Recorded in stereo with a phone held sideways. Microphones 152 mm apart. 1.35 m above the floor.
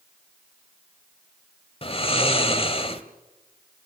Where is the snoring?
40° left (ahead or behind), 1.5 m.